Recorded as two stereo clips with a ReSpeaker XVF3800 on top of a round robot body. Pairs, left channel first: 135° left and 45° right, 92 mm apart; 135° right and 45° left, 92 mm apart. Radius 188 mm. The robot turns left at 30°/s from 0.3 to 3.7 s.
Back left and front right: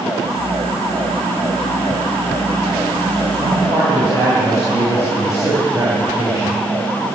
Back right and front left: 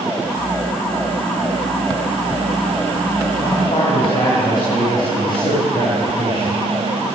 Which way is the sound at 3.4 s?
90° right.